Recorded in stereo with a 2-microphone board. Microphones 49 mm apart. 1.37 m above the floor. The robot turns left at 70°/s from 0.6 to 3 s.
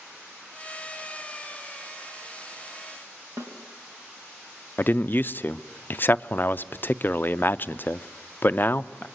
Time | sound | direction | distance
3.4 | a snare drum | 70° right (ahead or behind) | 3 m
4.8 | a man speaking | 40° left (ahead or behind) | 0.5 m